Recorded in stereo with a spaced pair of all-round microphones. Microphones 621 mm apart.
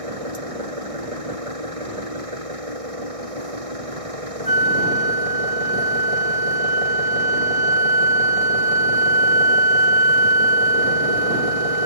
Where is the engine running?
60° right (ahead or behind).